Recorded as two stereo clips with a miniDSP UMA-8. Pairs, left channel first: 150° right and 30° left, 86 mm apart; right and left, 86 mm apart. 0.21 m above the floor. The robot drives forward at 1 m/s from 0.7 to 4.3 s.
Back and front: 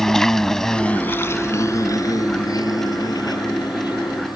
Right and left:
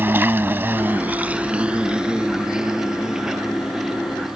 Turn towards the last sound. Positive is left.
turn(degrees=175)